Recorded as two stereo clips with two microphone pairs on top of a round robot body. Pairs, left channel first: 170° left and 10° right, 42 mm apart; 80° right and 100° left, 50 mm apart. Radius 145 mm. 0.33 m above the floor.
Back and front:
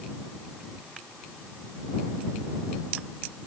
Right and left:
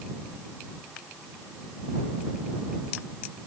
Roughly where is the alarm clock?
No alarm clock in this recording.